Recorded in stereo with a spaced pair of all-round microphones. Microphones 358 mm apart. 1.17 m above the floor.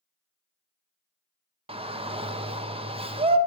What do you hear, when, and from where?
1.7 s a shout: 15° right (ahead or behind), 0.7 m